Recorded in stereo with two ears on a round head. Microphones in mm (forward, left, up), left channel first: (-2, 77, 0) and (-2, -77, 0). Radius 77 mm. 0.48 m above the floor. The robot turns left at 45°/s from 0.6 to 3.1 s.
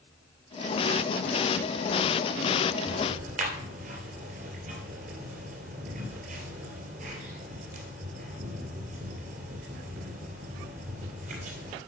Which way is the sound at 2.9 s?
40° right (ahead or behind).